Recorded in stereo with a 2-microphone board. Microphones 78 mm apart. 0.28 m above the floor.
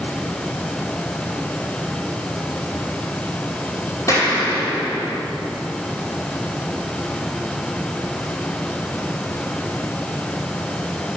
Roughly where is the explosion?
Left.